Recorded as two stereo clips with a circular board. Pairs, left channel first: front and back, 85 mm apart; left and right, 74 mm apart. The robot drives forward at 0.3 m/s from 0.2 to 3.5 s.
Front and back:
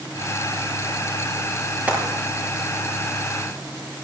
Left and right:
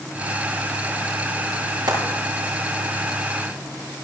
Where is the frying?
105° right, 7 m; by 2.0 s 110° right, 7 m.